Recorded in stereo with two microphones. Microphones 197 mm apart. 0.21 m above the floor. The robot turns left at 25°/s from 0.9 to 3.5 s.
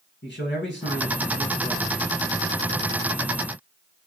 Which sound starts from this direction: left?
A man speaking, at 0.2 s.